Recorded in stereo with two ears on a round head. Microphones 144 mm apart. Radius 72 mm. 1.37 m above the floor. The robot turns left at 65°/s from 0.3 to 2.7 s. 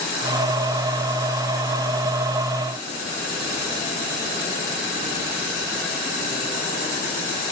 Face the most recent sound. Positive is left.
No sound to turn to.